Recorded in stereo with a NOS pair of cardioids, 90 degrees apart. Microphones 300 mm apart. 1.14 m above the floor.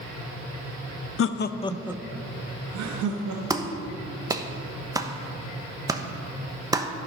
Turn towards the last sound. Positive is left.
turn(degrees=-10)